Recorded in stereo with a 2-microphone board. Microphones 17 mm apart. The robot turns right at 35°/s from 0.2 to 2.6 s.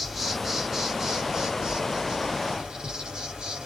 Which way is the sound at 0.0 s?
165° right.